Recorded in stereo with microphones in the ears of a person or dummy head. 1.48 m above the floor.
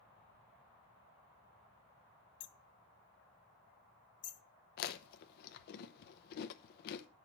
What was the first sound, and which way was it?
Hammering, 25° left (ahead or behind).